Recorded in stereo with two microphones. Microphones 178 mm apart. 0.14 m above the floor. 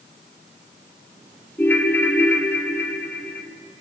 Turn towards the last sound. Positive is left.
turn(degrees=10)  # may be behind; listen again after turning